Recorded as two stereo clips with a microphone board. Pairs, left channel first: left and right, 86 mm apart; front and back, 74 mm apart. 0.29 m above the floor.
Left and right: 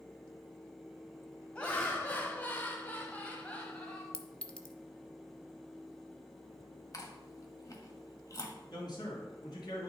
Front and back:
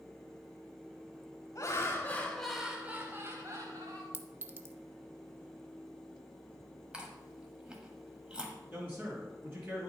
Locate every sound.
1.6 s laughter: 20° left, 1.3 m; by 4.0 s 165° left, 1.7 m
4.1 s a clink: 155° left, 0.7 m
6.9 s chewing: 110° left, 1.4 m
8.7 s a man speaking: 120° left, 3.5 m